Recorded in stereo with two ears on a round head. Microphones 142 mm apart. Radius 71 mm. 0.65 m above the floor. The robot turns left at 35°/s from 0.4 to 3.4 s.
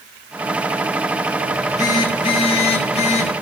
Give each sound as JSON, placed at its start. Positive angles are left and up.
{"t": 1.5, "sound": "a phone buzzing", "azimuth_deg": 150, "distance_m": 1.1}